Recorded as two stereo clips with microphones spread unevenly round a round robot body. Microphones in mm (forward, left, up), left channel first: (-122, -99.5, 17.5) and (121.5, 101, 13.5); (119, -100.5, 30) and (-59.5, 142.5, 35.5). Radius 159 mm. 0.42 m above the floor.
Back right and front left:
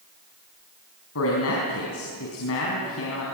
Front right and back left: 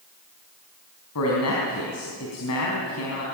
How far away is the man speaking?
About 4.5 m.